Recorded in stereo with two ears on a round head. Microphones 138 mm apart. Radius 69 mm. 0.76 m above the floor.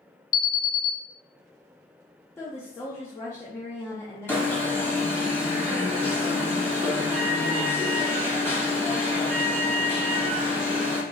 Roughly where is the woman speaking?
Centre.